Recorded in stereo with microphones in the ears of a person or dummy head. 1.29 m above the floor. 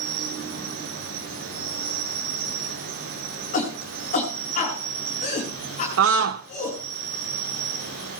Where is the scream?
80° right, 0.6 m.